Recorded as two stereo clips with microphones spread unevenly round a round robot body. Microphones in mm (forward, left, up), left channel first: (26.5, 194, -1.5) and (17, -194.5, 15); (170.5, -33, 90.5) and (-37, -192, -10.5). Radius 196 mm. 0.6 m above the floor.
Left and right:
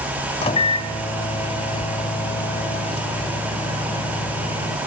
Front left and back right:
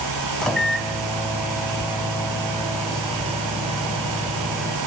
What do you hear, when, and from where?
0.4 s a microwave: 155° left, 0.6 m